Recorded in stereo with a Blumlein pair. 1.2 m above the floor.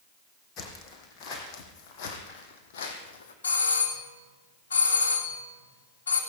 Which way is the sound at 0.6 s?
30° left.